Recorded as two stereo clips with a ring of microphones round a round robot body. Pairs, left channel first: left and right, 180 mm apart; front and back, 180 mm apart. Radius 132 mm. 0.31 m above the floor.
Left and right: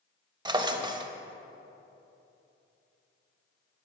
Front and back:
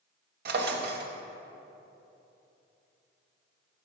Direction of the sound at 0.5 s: 155° right.